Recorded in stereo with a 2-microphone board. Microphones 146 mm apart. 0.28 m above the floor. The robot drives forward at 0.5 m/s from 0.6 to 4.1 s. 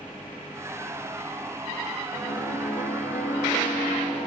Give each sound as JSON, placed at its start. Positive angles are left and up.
{"t": 2.1, "sound": "a piano", "side_deg": 70, "distance_m": 2.0}